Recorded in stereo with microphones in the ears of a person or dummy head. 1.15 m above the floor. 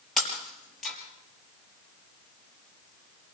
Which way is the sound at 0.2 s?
10° left (ahead or behind).